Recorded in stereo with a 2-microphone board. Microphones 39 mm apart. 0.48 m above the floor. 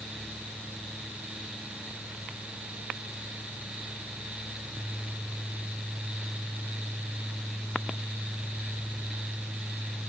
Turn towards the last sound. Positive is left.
No sound to turn to.